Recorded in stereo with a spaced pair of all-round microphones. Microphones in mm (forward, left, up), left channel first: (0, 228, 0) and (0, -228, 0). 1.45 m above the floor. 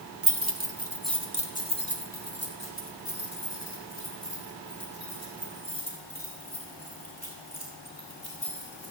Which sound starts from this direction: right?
Keys jangling, at 0.2 s.